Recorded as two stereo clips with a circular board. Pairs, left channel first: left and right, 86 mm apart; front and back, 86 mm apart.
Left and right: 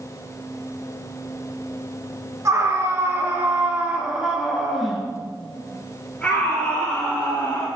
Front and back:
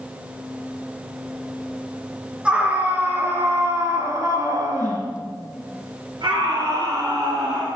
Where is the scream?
110° right, 1.8 m; by 7.7 s 155° left, 3 m.